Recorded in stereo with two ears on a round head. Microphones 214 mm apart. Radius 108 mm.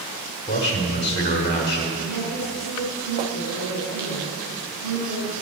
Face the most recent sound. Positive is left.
turn(degrees=-70)  # may be behind; listen again after turning